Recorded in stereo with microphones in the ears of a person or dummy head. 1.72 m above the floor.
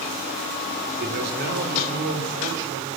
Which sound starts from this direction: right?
A man speaking, at 1.0 s.